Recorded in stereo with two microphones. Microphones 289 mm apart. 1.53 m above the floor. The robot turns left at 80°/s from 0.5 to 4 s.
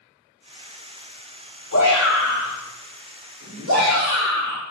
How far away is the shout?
About 3 m.